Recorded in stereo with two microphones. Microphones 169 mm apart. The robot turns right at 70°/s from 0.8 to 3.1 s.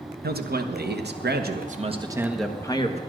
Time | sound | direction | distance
0.2 | a man speaking | 110° right | 1.1 m